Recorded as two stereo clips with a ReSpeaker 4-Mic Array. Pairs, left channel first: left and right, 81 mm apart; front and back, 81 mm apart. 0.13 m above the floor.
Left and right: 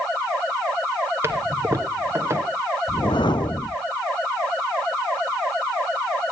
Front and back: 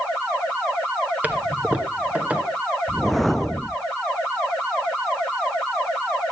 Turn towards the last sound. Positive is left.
turn(degrees=90)